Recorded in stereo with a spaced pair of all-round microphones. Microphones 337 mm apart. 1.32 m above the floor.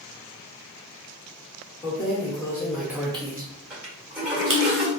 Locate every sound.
1.8 s keys jangling: 20° left (ahead or behind), 1.2 m; by 4.6 s 75° right (ahead or behind), 0.8 m
3.7 s a toilet flushing: 5° right (ahead or behind), 1.7 m